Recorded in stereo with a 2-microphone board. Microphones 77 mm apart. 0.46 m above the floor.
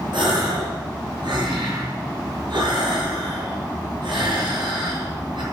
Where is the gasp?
80° right, 6 m.